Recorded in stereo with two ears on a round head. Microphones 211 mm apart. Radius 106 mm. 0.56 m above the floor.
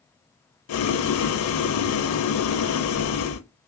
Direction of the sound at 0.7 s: 70° left (ahead or behind).